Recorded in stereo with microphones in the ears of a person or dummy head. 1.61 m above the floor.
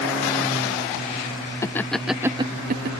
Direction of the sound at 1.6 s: 15° left (ahead or behind).